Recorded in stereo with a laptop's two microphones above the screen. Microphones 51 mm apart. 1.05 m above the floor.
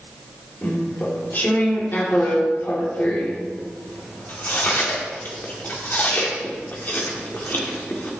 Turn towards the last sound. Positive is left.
turn(degrees=45)  # may be behind; listen again after turning